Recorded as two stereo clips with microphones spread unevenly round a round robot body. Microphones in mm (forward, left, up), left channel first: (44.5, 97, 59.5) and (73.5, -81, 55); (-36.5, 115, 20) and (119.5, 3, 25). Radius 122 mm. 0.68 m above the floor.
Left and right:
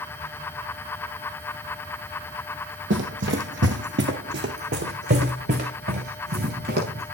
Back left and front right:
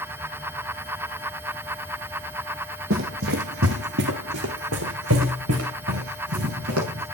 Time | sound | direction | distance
2.9 | running footsteps | 75° right | 1.8 m